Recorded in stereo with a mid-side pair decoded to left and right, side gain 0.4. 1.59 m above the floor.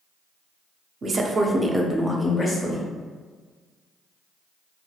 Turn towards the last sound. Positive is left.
turn(degrees=45)